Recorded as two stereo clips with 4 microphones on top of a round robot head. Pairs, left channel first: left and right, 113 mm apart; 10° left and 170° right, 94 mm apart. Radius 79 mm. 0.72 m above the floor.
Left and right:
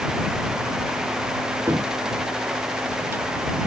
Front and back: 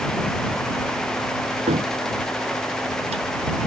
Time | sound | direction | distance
1.7 | a cupboard door | 165° right | ?